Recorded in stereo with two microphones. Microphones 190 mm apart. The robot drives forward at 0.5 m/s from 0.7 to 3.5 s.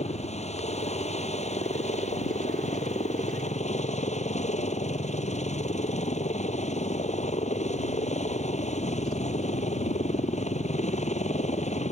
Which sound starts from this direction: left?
A helicopter, at 0.0 s.